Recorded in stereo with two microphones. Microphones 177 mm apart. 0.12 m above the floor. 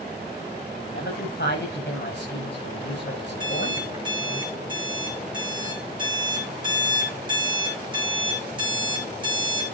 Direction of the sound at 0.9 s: 80° left.